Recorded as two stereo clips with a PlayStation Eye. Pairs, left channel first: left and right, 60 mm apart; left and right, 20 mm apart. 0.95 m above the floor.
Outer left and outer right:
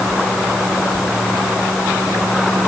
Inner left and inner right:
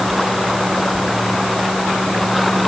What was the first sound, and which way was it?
Only background noise.